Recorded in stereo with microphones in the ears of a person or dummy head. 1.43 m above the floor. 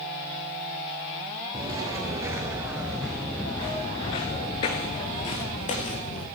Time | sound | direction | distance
1.5 | footsteps | 25° right (ahead or behind) | 2 m